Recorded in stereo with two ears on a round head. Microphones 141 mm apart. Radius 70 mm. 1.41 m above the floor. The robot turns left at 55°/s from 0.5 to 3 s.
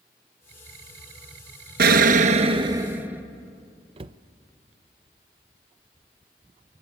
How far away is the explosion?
About 1.1 m.